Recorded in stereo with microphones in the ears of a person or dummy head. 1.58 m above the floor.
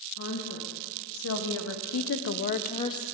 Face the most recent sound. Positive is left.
turn(degrees=15)  # may be behind; listen again after turning